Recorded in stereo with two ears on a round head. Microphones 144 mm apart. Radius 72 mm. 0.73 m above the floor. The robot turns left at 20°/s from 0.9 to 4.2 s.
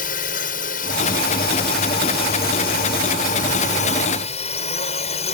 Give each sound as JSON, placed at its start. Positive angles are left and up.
{"t": 0.0, "sound": "a drone", "azimuth_deg": 115}